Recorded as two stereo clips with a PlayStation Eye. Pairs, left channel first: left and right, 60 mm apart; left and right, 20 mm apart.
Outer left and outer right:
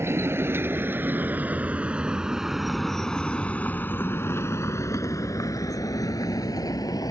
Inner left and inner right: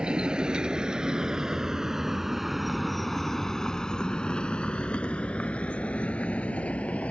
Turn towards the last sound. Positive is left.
turn(degrees=80)